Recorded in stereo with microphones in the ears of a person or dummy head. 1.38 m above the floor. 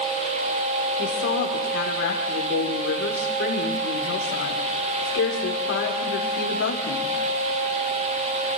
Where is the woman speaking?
70° left (ahead or behind), 5 m.